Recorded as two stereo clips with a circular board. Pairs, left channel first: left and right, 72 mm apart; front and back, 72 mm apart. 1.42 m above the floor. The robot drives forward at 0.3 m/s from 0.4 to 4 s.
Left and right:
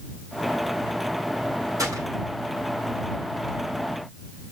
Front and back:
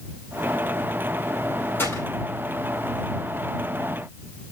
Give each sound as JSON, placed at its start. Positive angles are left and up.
{"t": 1.8, "sound": "a gunshot", "azimuth_deg": -55, "distance_m": 5.0}